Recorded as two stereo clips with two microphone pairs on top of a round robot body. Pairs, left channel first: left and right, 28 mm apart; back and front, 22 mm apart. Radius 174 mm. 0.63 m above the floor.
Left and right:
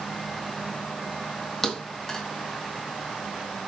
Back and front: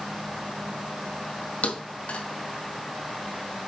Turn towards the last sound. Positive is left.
turn(degrees=165)